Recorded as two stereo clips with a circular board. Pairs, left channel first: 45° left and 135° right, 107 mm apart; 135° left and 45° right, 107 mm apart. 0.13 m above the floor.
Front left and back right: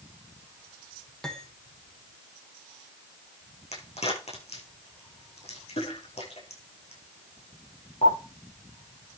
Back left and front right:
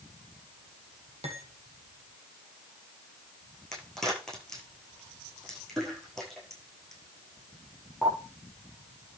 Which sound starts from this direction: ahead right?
Cutlery clinking, at 1.2 s.